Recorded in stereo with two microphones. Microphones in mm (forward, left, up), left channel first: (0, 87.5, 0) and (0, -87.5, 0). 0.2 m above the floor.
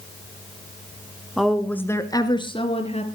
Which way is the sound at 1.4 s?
Centre (ahead or behind).